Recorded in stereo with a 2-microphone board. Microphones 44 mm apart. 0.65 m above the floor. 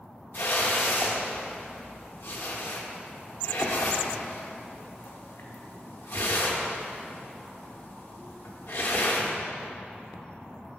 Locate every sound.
0.3 s a whoosh: 65° left (ahead or behind), 0.8 m